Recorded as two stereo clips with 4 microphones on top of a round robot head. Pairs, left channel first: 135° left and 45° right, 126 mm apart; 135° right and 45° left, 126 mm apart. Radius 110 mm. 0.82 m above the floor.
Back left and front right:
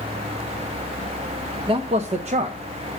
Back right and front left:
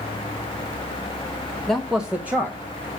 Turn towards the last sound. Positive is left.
turn(degrees=-25)